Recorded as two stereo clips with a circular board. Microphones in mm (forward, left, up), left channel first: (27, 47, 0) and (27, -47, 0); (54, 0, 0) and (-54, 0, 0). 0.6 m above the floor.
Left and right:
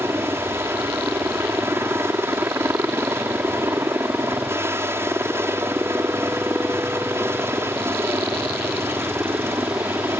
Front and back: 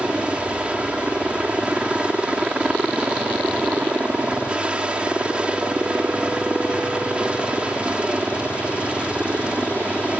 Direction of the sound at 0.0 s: 110° right.